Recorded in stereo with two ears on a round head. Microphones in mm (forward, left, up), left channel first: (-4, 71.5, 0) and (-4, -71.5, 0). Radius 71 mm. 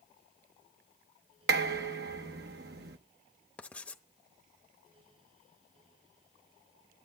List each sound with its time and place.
1.5 s dishes clattering: 70° right (ahead or behind), 0.9 m
3.6 s writing: 10° left (ahead or behind), 0.8 m